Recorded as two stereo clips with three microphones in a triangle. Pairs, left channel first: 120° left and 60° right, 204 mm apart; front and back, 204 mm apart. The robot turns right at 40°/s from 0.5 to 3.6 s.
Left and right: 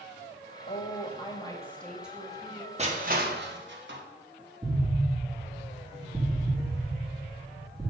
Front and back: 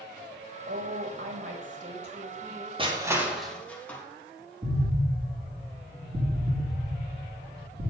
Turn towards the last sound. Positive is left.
turn(degrees=-130)